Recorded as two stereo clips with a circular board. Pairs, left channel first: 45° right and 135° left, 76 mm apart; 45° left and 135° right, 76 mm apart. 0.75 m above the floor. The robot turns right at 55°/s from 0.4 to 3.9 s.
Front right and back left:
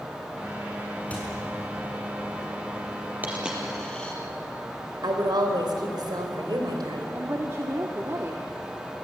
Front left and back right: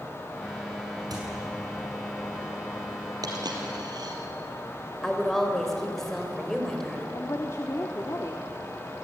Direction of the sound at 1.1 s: 115° right.